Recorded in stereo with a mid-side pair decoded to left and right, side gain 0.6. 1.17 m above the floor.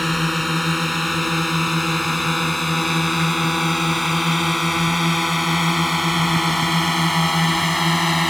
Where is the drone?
5° left.